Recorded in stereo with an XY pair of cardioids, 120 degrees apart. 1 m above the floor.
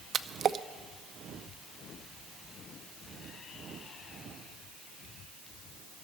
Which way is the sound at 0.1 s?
45° right.